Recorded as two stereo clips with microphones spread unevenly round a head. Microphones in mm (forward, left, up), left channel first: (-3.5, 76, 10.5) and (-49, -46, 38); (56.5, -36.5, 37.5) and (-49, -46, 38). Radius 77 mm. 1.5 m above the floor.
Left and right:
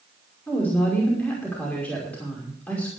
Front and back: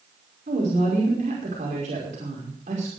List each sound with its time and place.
0.5 s a woman speaking: 150° left, 5.5 m